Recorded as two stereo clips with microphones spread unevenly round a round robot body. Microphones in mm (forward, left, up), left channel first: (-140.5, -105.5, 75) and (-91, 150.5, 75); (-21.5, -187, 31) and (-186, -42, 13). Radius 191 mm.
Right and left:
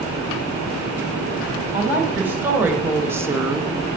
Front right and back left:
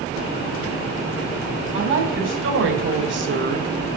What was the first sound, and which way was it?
A woman speaking, 160° left.